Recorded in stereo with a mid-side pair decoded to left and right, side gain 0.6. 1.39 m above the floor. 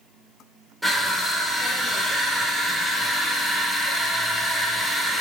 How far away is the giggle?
No giggle in this recording.